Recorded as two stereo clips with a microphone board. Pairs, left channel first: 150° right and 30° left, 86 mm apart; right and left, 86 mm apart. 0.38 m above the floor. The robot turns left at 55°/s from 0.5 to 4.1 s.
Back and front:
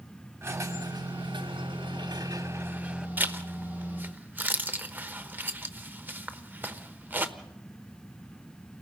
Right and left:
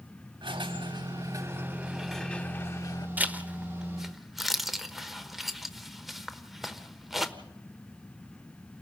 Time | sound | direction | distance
0.4 | a squeak | 85° left | 1.1 m
3.2 | a zipper | 55° left | 1.0 m